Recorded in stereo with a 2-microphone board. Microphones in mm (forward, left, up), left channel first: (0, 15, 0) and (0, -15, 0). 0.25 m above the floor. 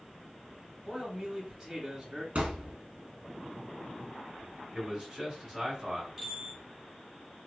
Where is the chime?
5° right (ahead or behind), 1.2 m.